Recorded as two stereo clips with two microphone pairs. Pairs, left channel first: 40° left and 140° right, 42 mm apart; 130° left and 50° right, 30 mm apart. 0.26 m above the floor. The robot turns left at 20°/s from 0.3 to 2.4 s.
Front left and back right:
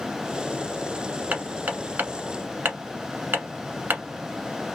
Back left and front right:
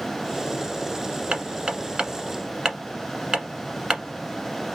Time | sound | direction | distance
1.3 | hammering | 90° right | 1.1 m